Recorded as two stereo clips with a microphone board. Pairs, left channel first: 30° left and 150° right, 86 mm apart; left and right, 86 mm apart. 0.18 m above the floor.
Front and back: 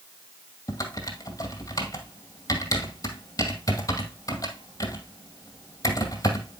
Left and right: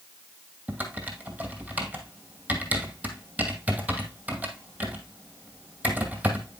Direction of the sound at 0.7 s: 15° right.